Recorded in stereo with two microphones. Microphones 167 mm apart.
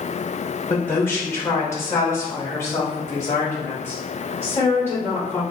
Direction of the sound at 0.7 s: 10° left (ahead or behind).